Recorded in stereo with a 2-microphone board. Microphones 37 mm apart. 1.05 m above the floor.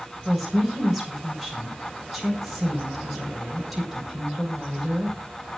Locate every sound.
0.2 s a woman speaking: centre (ahead or behind), 5.5 m